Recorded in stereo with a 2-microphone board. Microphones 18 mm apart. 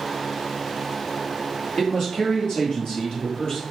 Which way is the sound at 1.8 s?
50° left (ahead or behind).